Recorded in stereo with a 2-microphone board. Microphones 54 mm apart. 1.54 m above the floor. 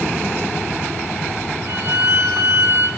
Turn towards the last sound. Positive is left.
turn(degrees=-80)